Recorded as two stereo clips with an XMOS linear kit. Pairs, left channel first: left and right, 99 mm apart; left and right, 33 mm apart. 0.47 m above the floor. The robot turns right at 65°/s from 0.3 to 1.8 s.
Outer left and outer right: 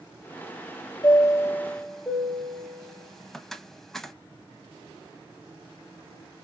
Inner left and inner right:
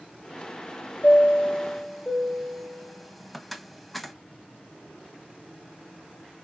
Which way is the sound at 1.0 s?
50° left (ahead or behind).